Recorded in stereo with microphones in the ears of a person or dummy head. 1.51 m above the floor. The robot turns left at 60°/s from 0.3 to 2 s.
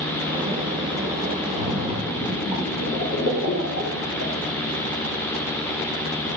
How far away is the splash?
About 3 m.